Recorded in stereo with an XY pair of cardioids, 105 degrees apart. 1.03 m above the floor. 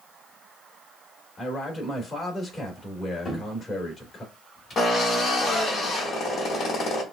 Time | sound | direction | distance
1.4 | a man speaking | 35° left | 2.5 m
3.2 | a cupboard door | 40° left | 2 m
4.8 | a drill | 55° left | 1.9 m